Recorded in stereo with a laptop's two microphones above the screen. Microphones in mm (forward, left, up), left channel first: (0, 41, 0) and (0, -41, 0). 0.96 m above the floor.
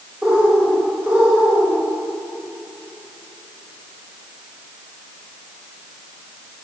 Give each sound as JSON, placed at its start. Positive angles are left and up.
{"t": 0.2, "sound": "a bird", "side_deg": -20, "distance_m": 1.6}